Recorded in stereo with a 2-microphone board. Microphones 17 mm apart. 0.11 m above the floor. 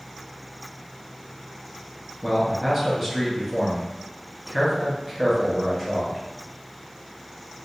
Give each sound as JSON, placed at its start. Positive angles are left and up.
{"t": 2.2, "sound": "a man speaking", "side_deg": 0, "distance_m": 1.1}